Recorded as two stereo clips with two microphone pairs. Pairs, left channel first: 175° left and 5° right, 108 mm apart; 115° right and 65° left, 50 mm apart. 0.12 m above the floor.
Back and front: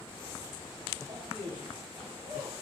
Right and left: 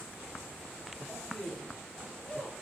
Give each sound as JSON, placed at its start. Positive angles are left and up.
{"t": 1.1, "sound": "a man speaking", "azimuth_deg": -25, "distance_m": 3.5}